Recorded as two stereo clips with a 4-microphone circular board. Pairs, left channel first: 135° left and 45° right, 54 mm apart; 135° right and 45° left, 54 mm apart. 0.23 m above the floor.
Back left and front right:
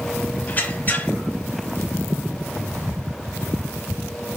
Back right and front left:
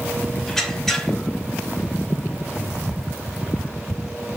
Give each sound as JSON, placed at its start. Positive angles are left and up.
{"t": 0.5, "sound": "a squeak", "azimuth_deg": 150, "distance_m": 0.5}